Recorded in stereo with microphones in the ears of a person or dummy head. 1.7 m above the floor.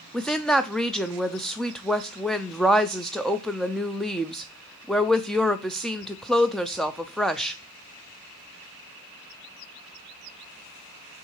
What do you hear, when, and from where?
0.1 s a woman speaking: centre (ahead or behind), 0.6 m